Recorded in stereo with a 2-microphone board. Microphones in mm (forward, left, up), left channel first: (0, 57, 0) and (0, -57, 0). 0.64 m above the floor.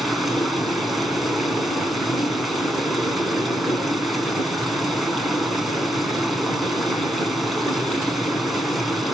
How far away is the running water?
About 4.5 m.